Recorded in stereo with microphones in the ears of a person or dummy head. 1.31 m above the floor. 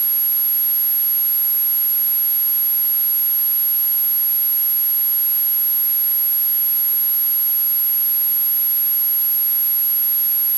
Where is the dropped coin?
I don't hear a dropped coin.